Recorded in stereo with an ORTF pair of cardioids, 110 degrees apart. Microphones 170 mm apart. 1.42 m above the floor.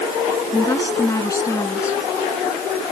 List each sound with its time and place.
0.5 s a woman speaking: 15° left